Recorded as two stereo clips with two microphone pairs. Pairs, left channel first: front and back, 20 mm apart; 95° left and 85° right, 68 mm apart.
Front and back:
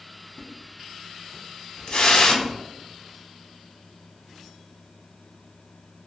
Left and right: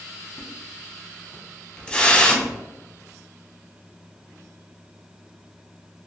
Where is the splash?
25° left, 0.5 m.